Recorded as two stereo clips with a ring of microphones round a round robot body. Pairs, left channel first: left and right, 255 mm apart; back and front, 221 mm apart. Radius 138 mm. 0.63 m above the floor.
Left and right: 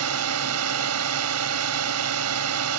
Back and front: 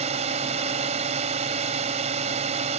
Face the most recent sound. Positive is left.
turn(degrees=-65)